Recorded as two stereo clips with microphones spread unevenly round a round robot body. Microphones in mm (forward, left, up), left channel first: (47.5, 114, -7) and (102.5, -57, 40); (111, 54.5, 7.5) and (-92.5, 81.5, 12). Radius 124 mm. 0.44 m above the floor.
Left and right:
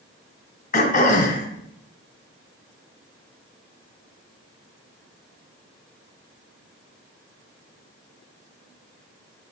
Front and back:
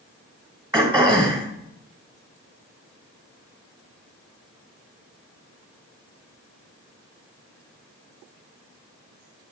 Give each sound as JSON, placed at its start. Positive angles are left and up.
{"t": 0.7, "sound": "throat clearing", "azimuth_deg": 110, "distance_m": 2.5}